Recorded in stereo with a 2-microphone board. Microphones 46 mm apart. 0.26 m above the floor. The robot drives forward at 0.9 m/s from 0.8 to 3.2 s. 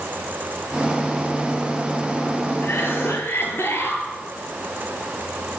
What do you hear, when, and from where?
2.6 s a cough: 55° left (ahead or behind), 5.5 m